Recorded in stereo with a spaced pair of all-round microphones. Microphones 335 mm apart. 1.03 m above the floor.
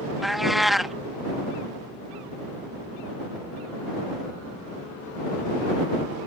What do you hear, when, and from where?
0.2 s a cat meowing: centre (ahead or behind)